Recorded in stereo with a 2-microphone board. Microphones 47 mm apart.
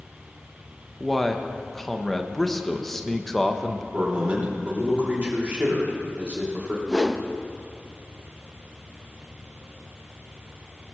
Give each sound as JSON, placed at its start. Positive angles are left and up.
{"t": 1.0, "sound": "a man speaking", "side_deg": 5, "distance_m": 0.9}
{"t": 3.9, "sound": "a man speaking", "side_deg": -30, "distance_m": 3.0}
{"t": 6.9, "sound": "a whoosh", "side_deg": -5, "distance_m": 0.6}